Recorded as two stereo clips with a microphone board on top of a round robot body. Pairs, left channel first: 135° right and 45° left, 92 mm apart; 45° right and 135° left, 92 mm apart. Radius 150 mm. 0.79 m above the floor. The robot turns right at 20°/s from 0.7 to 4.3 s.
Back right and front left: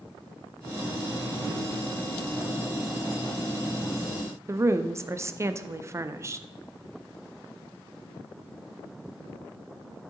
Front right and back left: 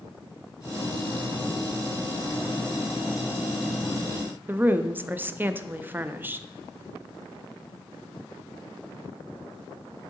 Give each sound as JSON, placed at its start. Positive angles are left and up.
{"t": 4.5, "sound": "a woman speaking", "azimuth_deg": 80, "distance_m": 0.6}